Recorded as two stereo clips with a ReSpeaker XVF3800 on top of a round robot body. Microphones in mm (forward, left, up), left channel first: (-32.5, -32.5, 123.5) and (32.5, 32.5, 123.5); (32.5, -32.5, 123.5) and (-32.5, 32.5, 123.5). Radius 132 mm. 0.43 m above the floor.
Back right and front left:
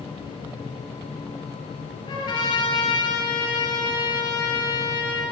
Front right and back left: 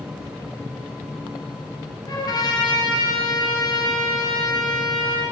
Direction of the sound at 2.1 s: 95° right.